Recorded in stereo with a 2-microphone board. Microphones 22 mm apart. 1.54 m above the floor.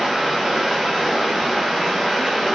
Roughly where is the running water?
Centre.